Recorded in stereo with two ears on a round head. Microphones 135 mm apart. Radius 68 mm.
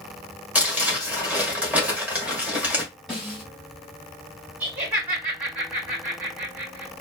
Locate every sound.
0.6 s crumpling: 10° right (ahead or behind), 1.5 m
3.1 s a snare drum: centre (ahead or behind), 1.8 m
4.6 s laughter: 10° right (ahead or behind), 1.6 m